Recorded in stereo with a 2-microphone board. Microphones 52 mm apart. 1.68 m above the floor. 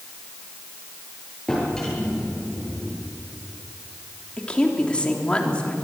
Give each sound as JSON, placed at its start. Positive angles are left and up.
{"t": 1.5, "sound": "a drawer", "side_deg": 10, "distance_m": 8.5}
{"t": 4.4, "sound": "a woman speaking", "side_deg": 20, "distance_m": 3.5}